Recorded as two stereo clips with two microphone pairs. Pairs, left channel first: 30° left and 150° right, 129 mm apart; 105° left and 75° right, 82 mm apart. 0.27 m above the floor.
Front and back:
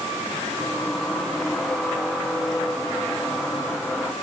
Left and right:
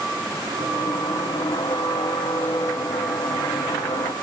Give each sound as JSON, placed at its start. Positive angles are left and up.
{"t": 0.6, "sound": "a squeak", "azimuth_deg": 115, "distance_m": 1.1}